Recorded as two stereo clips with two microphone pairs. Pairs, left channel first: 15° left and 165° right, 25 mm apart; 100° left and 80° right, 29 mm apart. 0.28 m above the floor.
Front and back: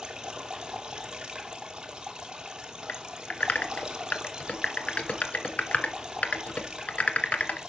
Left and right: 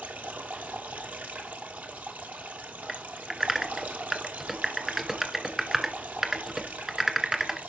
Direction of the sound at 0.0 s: 105° right.